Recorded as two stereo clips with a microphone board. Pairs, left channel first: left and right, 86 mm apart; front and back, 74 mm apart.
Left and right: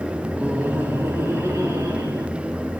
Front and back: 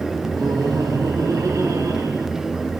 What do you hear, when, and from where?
0.3 s laughter: 165° right, 2 m; by 2.3 s 140° right, 3.5 m